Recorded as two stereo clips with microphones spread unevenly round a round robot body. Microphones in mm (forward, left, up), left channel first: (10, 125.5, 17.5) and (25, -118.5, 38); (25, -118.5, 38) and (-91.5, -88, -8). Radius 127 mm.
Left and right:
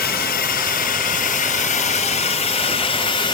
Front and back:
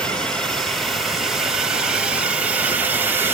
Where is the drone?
90° left; by 3.3 s 145° left.